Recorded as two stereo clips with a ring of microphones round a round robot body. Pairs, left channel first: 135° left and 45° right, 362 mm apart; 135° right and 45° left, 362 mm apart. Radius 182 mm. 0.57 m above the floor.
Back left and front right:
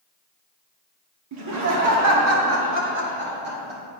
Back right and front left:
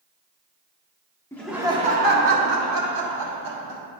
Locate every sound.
1.3 s laughter: 55° right, 0.9 m; by 3.8 s 20° left, 2.0 m